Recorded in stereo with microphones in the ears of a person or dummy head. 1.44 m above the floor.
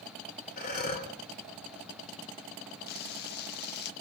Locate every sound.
0.6 s breathing: 55° left (ahead or behind), 2.5 m
2.9 s frying: 50° left (ahead or behind), 1.2 m